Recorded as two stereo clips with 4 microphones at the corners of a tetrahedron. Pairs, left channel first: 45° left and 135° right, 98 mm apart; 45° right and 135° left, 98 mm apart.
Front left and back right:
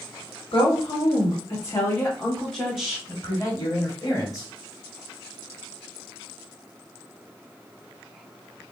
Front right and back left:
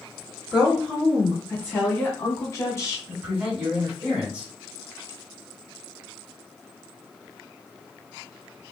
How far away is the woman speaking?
About 1.6 m.